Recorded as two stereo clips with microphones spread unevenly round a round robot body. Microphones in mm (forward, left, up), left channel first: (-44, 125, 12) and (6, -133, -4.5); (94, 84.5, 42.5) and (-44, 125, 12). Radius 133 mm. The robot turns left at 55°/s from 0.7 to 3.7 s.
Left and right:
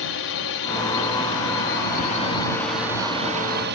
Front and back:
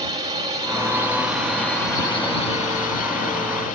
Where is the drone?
120° left; by 3.8 s 45° right.